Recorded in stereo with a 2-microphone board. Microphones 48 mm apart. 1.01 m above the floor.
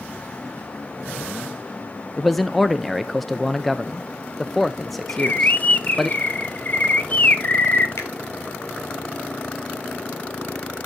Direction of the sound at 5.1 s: 35° left (ahead or behind).